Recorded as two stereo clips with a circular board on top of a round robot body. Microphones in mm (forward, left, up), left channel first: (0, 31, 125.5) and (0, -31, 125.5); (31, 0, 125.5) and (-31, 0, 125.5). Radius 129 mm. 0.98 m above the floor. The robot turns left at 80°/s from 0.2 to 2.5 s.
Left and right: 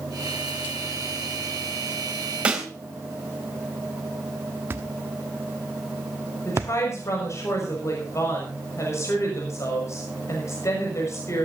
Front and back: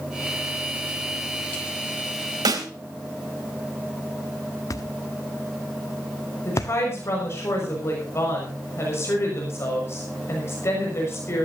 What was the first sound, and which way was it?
A snare drum, 160° right.